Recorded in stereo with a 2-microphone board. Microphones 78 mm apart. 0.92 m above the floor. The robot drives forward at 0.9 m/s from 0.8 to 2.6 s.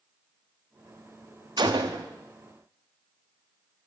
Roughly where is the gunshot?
Right.